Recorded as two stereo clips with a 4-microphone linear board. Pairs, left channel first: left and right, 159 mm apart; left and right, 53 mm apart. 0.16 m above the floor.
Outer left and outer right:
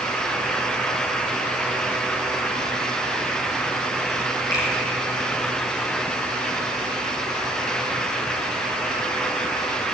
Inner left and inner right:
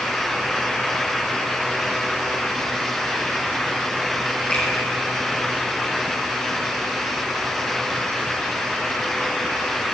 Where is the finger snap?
25° left (ahead or behind), 4.5 m.